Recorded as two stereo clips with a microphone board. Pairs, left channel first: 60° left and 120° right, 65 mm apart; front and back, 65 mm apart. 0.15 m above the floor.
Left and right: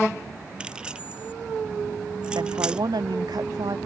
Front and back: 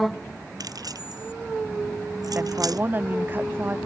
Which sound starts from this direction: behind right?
A woman speaking, at 2.4 s.